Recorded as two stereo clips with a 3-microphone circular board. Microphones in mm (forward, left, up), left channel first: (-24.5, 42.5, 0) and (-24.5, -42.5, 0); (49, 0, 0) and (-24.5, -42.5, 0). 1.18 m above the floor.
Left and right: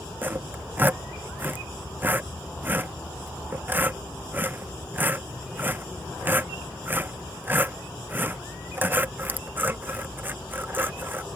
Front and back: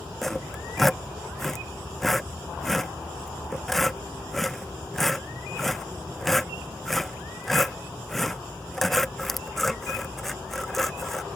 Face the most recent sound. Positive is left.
turn(degrees=-55)